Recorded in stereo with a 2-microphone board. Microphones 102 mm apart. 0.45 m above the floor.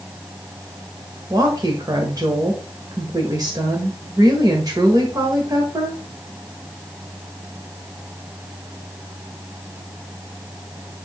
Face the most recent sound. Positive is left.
turn(degrees=-40)  # may be behind; listen again after turning